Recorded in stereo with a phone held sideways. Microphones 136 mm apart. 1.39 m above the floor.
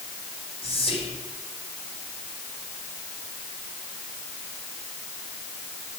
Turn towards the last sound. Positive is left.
turn(degrees=45)  # may be behind; listen again after turning